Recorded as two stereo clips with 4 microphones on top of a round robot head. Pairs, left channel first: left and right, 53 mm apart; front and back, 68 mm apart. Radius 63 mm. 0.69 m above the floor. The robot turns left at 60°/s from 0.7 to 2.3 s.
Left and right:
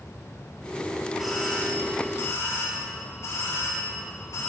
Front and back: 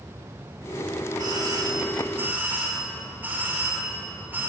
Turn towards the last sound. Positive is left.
turn(degrees=120)